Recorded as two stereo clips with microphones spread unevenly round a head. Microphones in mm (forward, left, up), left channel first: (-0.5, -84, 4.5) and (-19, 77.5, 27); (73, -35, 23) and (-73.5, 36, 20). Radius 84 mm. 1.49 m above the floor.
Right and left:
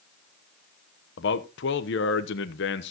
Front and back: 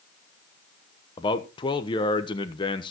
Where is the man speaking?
90° right, 1.1 m.